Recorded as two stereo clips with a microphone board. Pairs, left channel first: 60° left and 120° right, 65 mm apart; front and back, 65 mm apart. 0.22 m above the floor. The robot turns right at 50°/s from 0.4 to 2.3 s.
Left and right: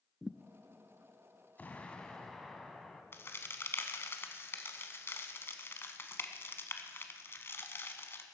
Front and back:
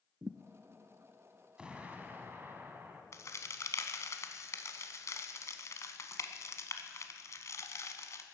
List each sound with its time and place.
0.2 s a thud: 155° left, 0.5 m
1.6 s an explosion: 110° left, 1.4 m; by 3.0 s 145° left, 1.4 m
3.1 s a crack: 20° left, 1.0 m